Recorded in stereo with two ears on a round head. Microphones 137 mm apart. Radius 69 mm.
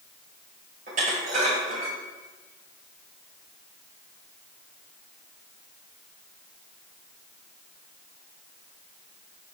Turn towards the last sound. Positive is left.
turn(degrees=-60)  # may be behind; listen again after turning